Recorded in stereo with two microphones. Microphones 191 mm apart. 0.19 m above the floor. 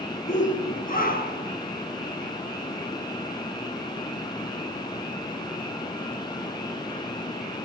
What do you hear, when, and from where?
0.3 s a shout: 40° left (ahead or behind), 2.5 m; by 1.5 s 55° left (ahead or behind), 3.5 m